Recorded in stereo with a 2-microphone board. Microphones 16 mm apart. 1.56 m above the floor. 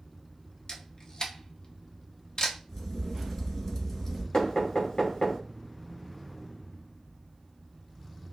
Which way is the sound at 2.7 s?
25° left (ahead or behind).